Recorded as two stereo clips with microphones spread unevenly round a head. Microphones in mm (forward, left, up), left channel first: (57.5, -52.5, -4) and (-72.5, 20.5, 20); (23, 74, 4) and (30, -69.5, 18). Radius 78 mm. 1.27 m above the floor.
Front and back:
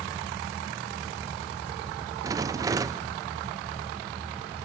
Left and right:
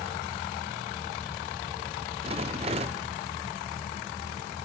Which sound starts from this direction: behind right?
A rattle, at 2.2 s.